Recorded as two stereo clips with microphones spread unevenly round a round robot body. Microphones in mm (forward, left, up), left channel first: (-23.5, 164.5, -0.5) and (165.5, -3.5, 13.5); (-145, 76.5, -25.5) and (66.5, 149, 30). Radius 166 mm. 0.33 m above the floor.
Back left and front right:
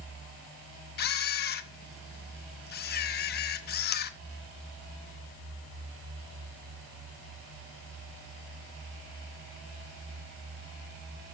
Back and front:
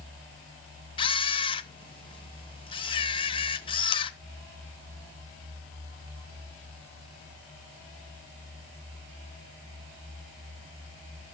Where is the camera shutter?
160° left, 0.5 m.